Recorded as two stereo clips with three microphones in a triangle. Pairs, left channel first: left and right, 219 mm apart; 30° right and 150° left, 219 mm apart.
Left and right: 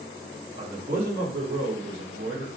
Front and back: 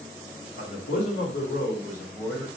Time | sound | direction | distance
0.6 | a man speaking | 25° right | 1.0 m